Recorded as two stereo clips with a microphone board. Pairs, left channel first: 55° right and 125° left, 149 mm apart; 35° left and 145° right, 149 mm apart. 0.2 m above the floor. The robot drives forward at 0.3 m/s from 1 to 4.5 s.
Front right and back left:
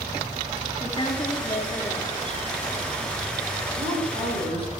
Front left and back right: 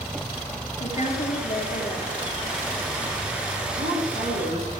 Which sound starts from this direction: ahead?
A woman speaking, at 0.8 s.